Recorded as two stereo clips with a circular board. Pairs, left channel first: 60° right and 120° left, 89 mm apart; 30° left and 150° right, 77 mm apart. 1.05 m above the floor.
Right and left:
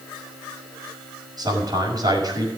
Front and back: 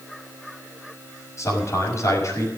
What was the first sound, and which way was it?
A man speaking, 80° left.